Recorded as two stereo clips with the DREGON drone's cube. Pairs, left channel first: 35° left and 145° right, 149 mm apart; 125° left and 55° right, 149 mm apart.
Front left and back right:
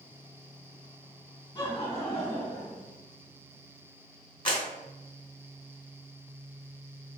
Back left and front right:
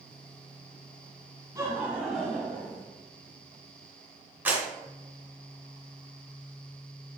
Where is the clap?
15° left, 1.1 m.